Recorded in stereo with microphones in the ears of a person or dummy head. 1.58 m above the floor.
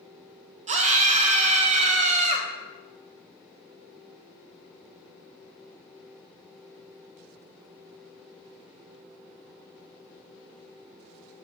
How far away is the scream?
About 1.1 m.